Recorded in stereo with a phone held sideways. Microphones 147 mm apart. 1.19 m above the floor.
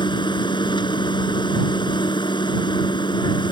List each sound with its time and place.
0.0 s a machine running: 35° left (ahead or behind)